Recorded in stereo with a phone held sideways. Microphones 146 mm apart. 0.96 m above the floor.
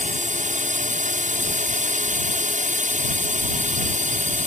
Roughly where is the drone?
Right.